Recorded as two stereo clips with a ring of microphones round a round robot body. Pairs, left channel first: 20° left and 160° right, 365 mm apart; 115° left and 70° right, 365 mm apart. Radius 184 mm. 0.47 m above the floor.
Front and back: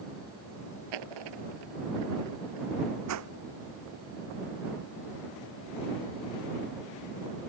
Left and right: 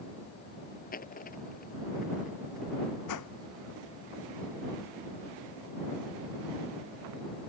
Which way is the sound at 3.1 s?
155° left.